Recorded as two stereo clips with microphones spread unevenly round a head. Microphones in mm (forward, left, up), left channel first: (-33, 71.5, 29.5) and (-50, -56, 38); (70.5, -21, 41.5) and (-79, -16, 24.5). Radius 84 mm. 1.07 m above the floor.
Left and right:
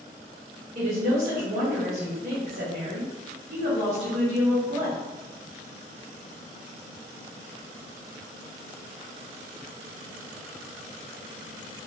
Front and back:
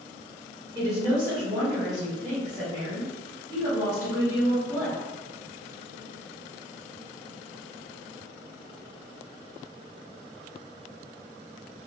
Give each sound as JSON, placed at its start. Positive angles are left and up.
{"t": 0.8, "sound": "a woman speaking", "azimuth_deg": -120, "distance_m": 1.6}